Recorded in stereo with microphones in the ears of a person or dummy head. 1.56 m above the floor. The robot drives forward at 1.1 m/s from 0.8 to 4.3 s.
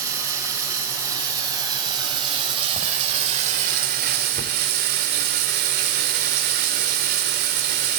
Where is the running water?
15° right (ahead or behind), 4 m; by 8.0 s 45° right (ahead or behind), 1.6 m.